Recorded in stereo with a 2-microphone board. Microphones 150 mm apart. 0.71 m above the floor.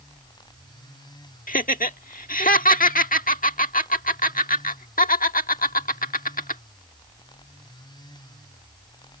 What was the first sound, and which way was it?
Laughter, 65° left (ahead or behind).